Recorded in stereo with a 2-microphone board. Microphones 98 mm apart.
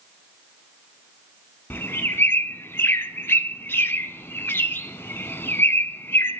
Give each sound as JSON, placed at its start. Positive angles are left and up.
{"t": 1.7, "sound": "a bird", "side_deg": 25, "distance_m": 0.7}